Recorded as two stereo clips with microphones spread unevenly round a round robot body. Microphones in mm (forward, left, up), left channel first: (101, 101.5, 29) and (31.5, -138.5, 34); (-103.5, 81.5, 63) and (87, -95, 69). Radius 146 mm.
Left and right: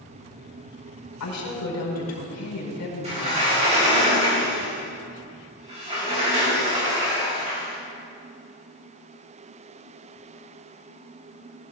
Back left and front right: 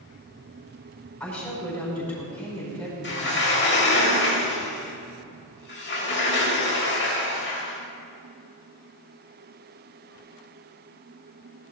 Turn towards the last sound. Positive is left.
turn(degrees=-175)